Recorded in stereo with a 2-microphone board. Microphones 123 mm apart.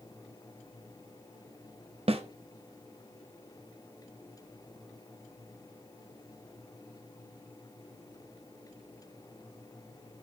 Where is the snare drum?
55° right (ahead or behind), 0.5 m.